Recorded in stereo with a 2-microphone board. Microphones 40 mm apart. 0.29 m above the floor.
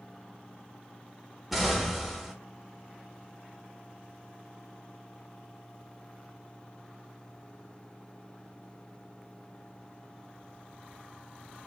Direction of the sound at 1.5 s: Centre (ahead or behind).